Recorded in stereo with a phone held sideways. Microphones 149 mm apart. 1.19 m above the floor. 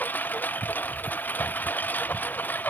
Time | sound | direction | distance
0.0 | a lawn mower | 10° left (ahead or behind) | ?